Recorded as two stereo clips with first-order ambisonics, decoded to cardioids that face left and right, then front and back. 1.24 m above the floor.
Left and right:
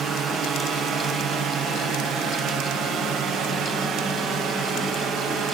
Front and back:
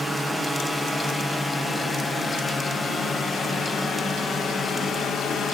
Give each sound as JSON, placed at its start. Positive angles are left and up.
{"t": 0.0, "sound": "a drone", "azimuth_deg": -95}